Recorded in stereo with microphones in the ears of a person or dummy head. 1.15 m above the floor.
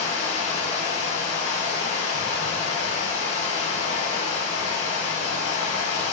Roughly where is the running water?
Left.